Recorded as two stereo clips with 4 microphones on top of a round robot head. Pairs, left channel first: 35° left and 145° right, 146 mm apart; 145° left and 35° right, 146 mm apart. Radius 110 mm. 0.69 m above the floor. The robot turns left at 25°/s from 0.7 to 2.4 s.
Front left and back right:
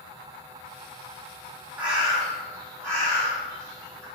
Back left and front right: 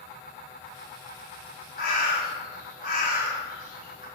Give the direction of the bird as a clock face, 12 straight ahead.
7 o'clock.